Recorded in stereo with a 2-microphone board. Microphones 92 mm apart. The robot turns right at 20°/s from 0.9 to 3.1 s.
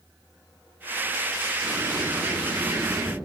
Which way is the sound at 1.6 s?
65° left (ahead or behind).